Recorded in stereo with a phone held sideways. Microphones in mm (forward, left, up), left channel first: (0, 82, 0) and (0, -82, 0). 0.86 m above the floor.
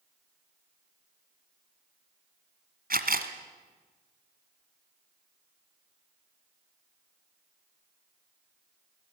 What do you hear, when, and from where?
2.9 s a camera shutter: 60° right (ahead or behind), 1.7 m